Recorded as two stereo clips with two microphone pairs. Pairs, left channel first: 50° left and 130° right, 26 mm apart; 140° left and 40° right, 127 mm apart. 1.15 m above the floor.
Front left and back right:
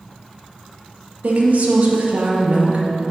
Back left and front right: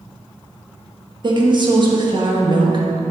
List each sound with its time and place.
1.2 s a woman speaking: 100° right, 1.2 m